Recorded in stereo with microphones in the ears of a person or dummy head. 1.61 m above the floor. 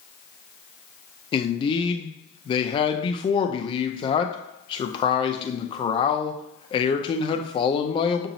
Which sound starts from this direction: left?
A man speaking, at 1.3 s.